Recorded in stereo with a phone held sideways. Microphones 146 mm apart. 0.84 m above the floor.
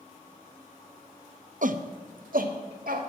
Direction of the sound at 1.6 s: 60° right (ahead or behind).